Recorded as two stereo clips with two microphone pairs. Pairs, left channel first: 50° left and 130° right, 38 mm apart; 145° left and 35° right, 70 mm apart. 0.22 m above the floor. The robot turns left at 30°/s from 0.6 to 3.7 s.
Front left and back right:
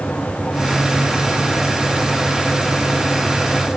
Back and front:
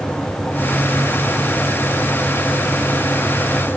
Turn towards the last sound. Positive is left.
No sound to turn to.